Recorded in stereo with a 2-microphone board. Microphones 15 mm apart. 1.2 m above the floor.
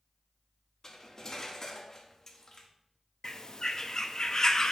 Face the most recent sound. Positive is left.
turn(degrees=40)  # may be behind; listen again after turning